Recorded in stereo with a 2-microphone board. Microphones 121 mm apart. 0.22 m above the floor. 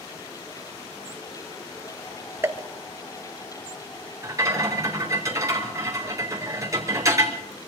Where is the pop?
20° right (ahead or behind), 1.1 m.